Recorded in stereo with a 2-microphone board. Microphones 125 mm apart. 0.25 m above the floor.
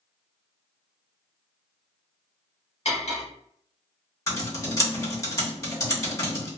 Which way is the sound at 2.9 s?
60° left (ahead or behind).